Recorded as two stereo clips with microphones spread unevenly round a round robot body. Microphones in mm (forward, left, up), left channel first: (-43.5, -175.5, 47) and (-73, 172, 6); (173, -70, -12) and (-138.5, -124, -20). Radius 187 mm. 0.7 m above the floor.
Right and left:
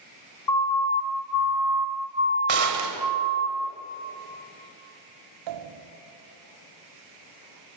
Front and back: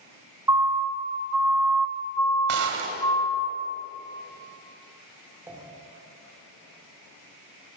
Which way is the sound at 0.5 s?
90° right.